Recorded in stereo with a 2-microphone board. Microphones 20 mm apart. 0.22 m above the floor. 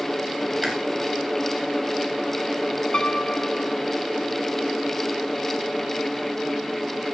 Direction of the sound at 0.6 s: 30° right (ahead or behind).